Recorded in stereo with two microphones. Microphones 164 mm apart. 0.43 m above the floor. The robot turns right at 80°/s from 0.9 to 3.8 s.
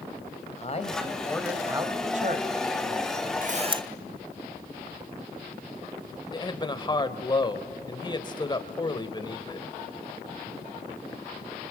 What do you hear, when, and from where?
0.6 s a man speaking: 135° left, 1.9 m; by 3.3 s 35° right, 1.9 m
3.4 s a camera shutter: 55° right, 0.7 m; by 3.8 s 25° right, 0.7 m
6.3 s a man speaking: 25° left (ahead or behind), 1.4 m